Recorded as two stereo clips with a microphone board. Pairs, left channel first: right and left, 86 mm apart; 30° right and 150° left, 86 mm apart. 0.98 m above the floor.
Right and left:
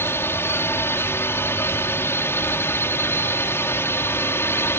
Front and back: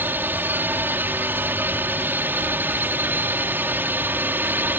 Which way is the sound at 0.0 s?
145° right.